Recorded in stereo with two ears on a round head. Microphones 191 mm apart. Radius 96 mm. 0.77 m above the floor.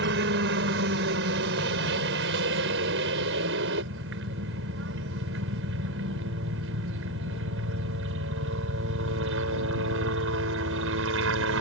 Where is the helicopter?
55° right (ahead or behind); by 11.6 s 65° right (ahead or behind).